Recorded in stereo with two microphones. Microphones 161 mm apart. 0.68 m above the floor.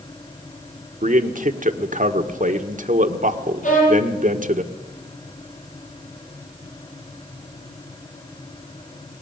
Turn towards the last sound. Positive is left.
turn(degrees=55)  # may be behind; listen again after turning